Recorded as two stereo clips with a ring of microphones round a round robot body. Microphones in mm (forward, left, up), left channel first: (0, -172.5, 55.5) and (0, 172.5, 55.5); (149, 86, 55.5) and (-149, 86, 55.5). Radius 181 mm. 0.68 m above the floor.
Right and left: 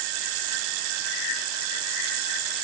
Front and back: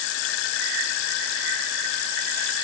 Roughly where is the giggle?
I don't hear a giggle.